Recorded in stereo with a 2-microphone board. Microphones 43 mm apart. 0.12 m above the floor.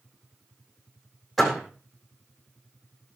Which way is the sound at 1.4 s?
Centre (ahead or behind).